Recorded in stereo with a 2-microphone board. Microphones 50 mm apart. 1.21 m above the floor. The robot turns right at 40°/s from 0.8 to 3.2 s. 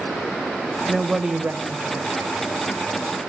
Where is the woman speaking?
Straight behind, 1.3 m; by 2.5 s 115° right, 1.3 m.